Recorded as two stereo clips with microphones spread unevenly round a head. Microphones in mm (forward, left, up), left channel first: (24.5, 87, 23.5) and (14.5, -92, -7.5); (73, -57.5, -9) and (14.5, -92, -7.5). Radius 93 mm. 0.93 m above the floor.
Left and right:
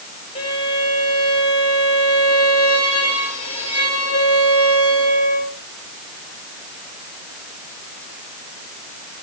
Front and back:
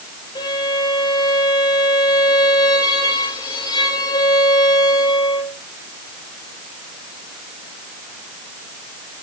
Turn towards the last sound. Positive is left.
turn(degrees=25)